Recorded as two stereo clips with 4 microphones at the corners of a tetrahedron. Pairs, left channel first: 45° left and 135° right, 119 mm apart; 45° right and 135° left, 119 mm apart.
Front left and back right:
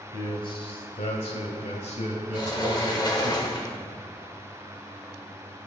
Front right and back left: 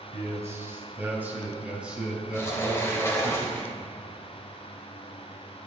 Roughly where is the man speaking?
Left.